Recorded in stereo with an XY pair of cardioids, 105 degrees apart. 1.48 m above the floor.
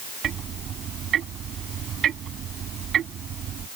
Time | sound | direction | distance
0.2 | ticking | 60° right | ?